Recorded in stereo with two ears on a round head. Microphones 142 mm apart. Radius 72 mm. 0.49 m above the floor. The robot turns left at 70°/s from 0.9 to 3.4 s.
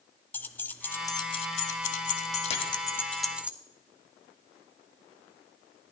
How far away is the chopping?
About 1.7 m.